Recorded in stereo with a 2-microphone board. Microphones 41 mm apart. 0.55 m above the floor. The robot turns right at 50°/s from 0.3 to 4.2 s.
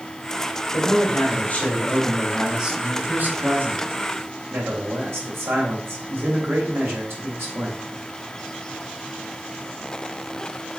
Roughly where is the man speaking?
Left.